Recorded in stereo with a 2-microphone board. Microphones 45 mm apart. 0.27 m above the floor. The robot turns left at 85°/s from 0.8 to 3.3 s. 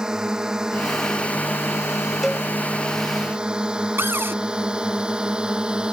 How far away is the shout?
I don't hear a shout.